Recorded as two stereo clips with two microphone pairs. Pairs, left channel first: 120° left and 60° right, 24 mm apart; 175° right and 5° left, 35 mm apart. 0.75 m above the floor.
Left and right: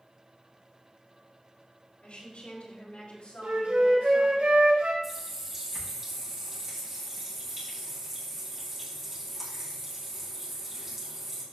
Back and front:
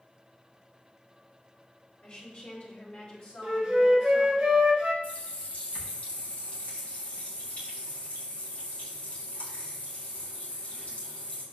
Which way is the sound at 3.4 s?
70° right.